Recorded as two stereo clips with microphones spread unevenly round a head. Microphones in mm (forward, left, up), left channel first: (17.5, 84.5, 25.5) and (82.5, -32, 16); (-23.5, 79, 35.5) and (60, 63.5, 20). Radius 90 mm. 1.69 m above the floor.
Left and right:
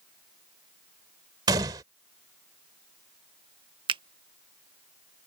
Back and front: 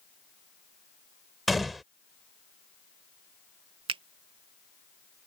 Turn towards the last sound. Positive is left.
turn(degrees=-20)